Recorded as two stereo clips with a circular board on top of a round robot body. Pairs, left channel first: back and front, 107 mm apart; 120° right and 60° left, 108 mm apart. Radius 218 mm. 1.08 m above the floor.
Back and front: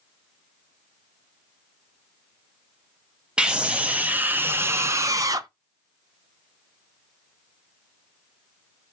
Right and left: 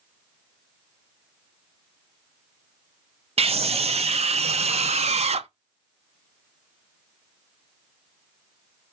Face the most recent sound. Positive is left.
turn(degrees=50)